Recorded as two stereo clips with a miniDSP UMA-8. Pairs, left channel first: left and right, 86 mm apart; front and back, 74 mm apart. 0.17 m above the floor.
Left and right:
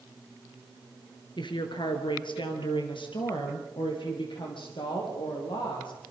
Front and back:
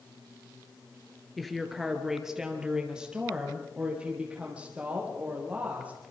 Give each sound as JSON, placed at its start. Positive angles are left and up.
{"t": 1.4, "sound": "a woman speaking", "azimuth_deg": 90, "distance_m": 2.5}